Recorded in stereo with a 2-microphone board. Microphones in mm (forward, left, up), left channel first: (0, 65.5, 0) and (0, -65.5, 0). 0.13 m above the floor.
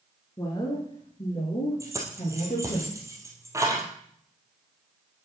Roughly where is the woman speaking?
Left.